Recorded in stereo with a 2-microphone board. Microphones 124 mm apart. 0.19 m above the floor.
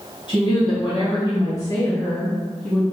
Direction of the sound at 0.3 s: 45° left (ahead or behind).